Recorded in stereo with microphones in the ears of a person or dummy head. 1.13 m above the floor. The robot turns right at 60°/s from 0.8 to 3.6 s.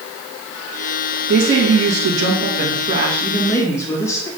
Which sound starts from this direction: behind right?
A woman speaking, at 1.3 s.